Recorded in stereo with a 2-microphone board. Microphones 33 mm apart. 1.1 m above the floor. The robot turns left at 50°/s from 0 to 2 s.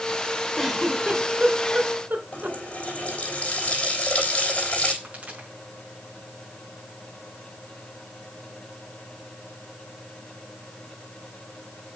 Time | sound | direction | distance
0.6 | a giggle | centre (ahead or behind) | 2.5 m
2.3 | a running tap | 40° left (ahead or behind) | 3.5 m
5.0 | a pop | 45° right (ahead or behind) | 6 m